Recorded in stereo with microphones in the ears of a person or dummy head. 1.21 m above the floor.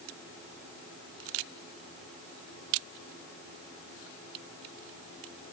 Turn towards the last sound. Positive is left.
No sound to turn to.